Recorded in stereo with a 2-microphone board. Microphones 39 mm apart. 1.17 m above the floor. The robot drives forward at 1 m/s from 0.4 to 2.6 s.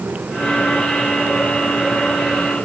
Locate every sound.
Only background noise.